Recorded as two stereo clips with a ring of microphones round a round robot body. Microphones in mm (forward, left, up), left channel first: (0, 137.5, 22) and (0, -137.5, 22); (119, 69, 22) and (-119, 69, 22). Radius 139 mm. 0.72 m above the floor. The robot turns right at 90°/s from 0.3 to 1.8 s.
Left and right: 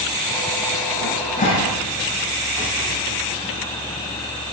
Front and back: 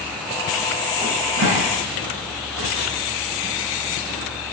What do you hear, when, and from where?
1.0 s a cupboard door: 115° left, 7.5 m; by 2.9 s 175° right, 7.5 m